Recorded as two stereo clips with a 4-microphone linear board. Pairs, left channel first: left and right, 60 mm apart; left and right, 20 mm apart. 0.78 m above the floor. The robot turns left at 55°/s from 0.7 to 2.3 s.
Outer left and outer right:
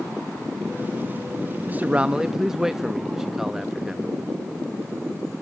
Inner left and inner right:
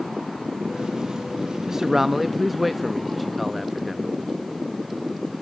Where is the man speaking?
135° right, 0.5 m; by 4.1 s 170° right, 0.5 m.